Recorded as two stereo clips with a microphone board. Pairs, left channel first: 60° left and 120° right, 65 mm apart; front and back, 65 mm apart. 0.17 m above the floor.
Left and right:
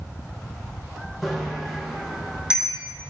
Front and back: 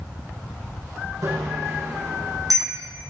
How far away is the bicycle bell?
About 6 m.